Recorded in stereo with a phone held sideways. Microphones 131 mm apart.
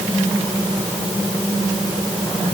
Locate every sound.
Only background noise.